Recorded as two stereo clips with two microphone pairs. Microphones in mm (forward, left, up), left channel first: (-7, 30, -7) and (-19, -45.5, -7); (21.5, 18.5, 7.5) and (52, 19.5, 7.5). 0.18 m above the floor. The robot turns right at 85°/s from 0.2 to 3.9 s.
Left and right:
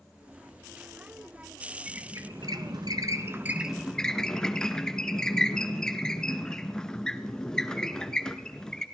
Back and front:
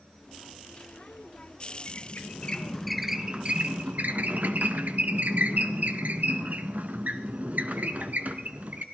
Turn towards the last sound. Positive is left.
turn(degrees=0)